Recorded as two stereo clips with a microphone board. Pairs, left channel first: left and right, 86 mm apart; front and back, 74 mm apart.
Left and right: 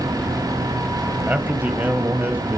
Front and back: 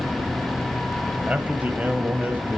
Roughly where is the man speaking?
Behind right.